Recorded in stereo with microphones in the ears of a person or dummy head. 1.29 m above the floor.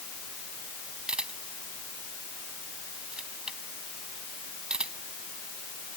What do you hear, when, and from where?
1.1 s a camera shutter: 5° right (ahead or behind)